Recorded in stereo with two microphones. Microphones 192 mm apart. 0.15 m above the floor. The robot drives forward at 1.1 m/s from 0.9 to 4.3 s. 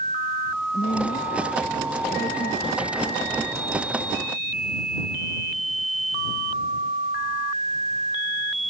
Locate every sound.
0.7 s a woman speaking: 50° left (ahead or behind); by 3.3 s 55° left (ahead or behind)